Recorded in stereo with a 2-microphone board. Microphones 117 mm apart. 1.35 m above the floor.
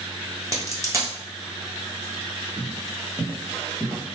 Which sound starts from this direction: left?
Footsteps, at 2.6 s.